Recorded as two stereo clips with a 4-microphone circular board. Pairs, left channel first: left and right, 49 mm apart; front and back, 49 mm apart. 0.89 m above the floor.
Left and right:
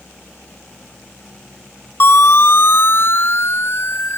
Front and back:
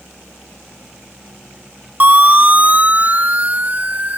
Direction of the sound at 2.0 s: 125° left.